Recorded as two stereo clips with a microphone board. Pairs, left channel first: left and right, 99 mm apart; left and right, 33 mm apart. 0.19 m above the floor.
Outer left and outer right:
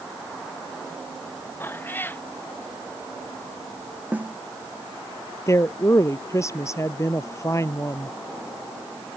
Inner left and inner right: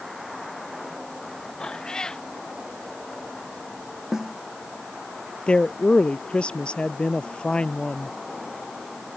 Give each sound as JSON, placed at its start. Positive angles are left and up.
{"t": 1.6, "sound": "a cat meowing", "side_deg": 20}
{"t": 4.1, "sound": "a snare drum", "side_deg": -15}
{"t": 5.5, "sound": "a woman speaking", "side_deg": 30}